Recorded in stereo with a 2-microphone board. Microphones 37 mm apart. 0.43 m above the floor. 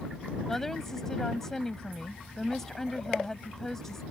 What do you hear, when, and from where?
0.5 s a woman speaking: 10° left (ahead or behind)